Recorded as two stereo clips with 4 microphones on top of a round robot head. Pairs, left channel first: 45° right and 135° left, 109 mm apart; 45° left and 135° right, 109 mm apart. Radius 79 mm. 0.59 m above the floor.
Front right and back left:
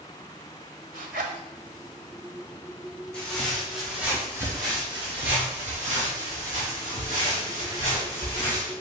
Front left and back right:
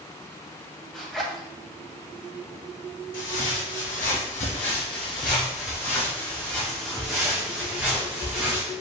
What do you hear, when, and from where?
0.9 s a zipper: 130° left, 0.6 m
3.1 s footsteps: 35° left, 1.8 m; by 8.7 s 145° left, 3 m